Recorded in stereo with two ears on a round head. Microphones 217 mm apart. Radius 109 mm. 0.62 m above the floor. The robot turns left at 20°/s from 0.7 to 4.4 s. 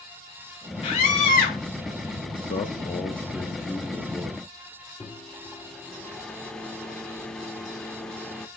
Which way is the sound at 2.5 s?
30° left.